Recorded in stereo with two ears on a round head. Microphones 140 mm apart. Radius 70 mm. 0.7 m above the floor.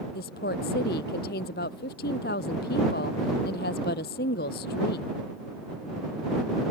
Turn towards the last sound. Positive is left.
turn(degrees=65)  # may be behind; listen again after turning